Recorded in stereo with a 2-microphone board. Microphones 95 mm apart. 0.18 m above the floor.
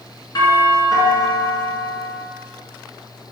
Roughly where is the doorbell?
Left.